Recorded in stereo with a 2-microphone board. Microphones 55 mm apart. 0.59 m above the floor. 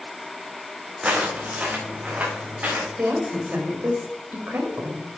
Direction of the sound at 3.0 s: 40° right (ahead or behind).